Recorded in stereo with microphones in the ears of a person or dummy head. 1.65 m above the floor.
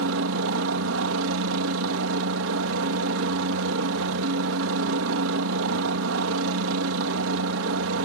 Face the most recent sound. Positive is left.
turn(degrees=-60)  # may be behind; listen again after turning